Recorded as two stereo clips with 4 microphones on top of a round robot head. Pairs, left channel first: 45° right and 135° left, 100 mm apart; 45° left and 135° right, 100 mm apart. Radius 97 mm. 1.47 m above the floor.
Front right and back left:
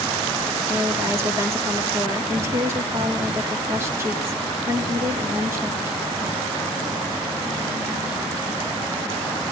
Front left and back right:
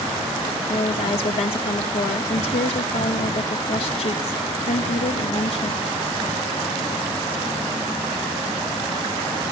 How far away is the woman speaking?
About 3.5 m.